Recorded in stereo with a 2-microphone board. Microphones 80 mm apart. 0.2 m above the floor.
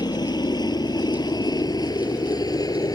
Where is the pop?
I don't hear a pop.